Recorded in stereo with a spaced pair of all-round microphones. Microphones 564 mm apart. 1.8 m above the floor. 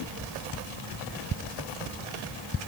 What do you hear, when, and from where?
Only background noise.